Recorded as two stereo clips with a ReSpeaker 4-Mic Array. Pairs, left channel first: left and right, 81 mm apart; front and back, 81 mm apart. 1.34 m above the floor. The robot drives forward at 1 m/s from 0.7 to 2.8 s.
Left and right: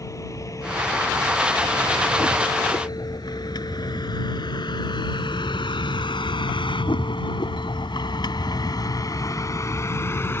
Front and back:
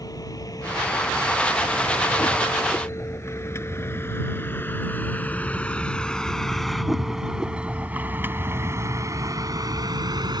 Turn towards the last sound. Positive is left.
turn(degrees=150)